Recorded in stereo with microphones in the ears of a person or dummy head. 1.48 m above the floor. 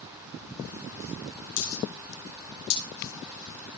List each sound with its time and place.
1.6 s a dropped coin: 60° left (ahead or behind), 6 m